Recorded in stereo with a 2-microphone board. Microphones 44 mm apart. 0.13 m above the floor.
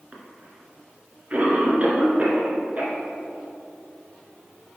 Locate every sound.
0.1 s a cough: 35° right (ahead or behind), 2.0 m